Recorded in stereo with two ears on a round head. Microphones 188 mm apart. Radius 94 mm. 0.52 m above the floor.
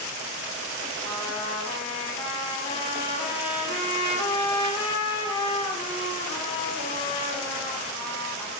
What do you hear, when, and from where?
1.0 s a trumpet: 25° left (ahead or behind), 4 m